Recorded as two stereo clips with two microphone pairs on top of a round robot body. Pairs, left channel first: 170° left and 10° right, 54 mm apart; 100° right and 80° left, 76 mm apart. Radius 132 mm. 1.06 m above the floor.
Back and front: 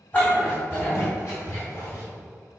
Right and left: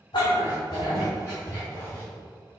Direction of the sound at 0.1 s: 135° right.